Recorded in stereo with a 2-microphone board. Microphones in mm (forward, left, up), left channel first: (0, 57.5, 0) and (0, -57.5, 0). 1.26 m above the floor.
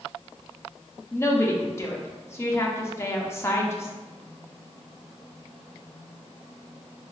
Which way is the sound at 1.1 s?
20° left (ahead or behind).